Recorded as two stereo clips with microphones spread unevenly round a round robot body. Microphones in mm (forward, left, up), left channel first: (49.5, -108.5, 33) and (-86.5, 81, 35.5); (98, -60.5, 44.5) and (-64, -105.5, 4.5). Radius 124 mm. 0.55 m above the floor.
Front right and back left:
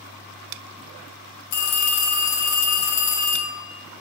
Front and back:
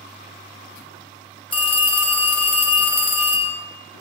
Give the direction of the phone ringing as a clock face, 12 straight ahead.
2 o'clock.